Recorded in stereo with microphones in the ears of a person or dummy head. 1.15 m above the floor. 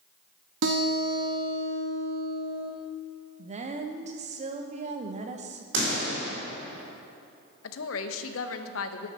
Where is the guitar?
65° right (ahead or behind), 1.4 m.